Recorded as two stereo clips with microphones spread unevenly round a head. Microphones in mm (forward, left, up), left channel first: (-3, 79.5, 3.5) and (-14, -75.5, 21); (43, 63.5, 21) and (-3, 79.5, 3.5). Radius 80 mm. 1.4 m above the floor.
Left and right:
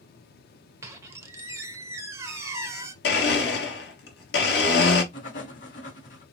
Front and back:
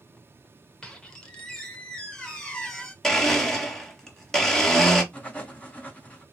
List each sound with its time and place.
0.8 s a squeak: 45° right, 0.7 m
3.0 s a blender: 60° left, 1.7 m
5.1 s writing: 45° left, 3 m